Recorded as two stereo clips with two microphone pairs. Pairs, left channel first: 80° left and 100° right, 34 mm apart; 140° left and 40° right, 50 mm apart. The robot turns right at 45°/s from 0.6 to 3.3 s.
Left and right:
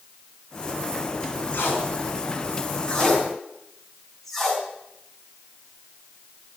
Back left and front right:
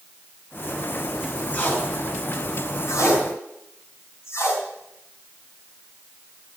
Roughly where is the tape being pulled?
Left.